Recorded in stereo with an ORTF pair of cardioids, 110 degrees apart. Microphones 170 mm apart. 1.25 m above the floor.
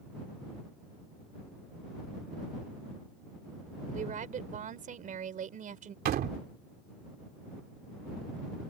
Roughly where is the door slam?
Ahead right.